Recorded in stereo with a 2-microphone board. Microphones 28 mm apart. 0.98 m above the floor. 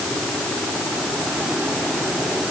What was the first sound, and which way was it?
Only background noise.